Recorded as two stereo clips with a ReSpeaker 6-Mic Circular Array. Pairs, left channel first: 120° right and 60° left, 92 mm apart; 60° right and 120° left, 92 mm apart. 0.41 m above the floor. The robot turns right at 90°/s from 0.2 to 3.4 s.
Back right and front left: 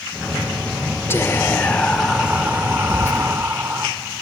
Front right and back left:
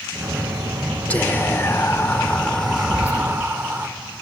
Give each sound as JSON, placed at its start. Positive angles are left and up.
{"t": 1.1, "sound": "whispering", "azimuth_deg": -115, "distance_m": 1.0}
{"t": 2.9, "sound": "whispering", "azimuth_deg": -95, "distance_m": 0.9}